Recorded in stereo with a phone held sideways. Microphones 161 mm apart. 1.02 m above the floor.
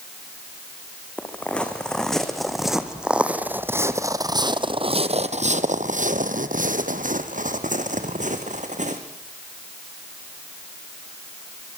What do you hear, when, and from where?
1.2 s footsteps: 5° left (ahead or behind), 3.5 m; by 9.0 s 50° right (ahead or behind), 3 m